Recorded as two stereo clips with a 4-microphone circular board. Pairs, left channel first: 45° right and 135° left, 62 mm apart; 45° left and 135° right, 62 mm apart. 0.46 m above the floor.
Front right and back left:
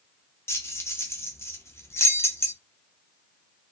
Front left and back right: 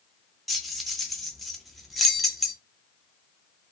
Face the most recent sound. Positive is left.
turn(degrees=-45)